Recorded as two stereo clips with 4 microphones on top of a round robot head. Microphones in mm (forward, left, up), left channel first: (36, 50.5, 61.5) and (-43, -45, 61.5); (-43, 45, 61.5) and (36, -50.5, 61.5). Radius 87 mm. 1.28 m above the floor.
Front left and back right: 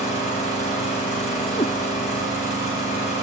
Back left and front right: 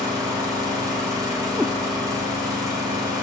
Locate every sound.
0.0 s an engine running: 15° left, 5.5 m
1.6 s a cat meowing: 45° left, 0.5 m